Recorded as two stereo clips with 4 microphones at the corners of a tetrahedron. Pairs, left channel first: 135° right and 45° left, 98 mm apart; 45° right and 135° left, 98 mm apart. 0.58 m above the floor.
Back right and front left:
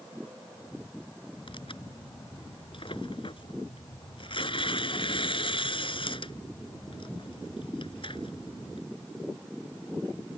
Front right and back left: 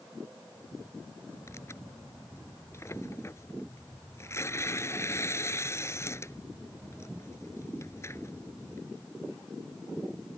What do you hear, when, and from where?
1.5 s tearing paper: 105° right